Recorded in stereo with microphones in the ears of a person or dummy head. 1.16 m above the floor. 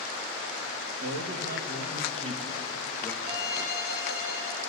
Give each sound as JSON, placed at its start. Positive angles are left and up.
{"t": 1.0, "sound": "a man speaking", "side_deg": -65, "distance_m": 1.5}
{"t": 3.2, "sound": "a violin", "side_deg": -25, "distance_m": 3.5}